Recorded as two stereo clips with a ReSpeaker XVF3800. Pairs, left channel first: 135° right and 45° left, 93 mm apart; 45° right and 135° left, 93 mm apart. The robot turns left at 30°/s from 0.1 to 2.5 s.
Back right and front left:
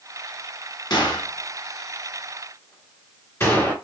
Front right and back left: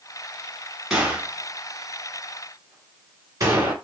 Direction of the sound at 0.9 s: 145° right.